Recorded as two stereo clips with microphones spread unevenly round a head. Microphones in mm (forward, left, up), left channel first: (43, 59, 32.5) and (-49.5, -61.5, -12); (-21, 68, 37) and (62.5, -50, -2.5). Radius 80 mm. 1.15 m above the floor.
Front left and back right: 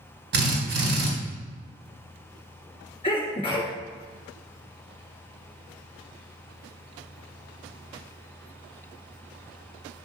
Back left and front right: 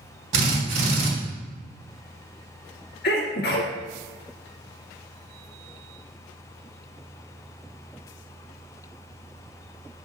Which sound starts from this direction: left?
A sneeze, at 3.0 s.